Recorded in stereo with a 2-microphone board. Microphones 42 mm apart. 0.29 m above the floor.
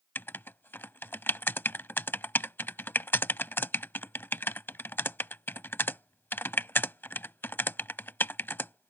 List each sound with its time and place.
0.1 s writing: 55° left (ahead or behind)